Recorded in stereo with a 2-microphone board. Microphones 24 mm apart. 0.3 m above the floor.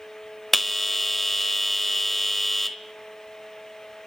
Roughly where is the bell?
Centre.